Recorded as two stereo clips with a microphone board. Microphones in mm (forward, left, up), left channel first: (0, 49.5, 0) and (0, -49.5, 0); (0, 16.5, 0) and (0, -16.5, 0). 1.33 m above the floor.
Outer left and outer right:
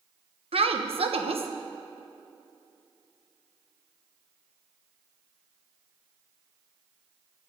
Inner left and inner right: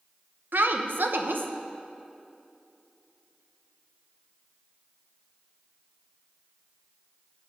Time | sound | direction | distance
0.5 | a woman speaking | 75° right (ahead or behind) | 1.0 m